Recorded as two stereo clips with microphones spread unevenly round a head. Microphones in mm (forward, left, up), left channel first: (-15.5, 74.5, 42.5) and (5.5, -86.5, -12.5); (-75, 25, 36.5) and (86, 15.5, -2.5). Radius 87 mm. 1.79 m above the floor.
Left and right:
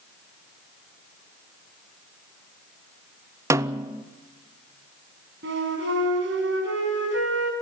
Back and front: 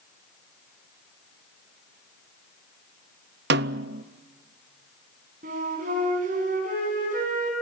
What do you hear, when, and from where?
3.5 s a snare drum: 5° left, 0.5 m
5.4 s a flute: 55° right, 5 m